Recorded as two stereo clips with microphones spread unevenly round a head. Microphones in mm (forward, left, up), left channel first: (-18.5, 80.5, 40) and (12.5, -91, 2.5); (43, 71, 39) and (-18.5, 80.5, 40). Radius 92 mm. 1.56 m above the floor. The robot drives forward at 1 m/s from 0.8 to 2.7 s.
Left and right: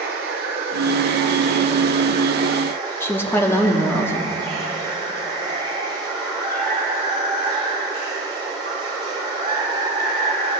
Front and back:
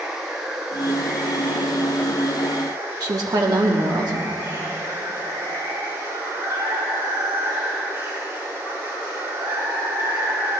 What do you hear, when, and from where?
0.0 s running water: 115° right, 1.9 m; by 10.6 s 150° right, 3 m
3.0 s a woman speaking: 175° left, 1.3 m